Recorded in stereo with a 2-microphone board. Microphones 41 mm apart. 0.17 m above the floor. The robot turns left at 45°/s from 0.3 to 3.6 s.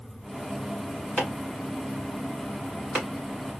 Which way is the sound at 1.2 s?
35° left (ahead or behind).